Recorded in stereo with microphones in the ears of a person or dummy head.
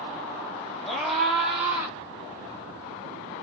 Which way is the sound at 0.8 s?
Centre (ahead or behind).